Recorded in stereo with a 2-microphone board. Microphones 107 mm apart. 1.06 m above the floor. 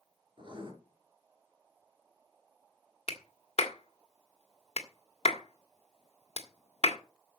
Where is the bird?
No bird in this recording.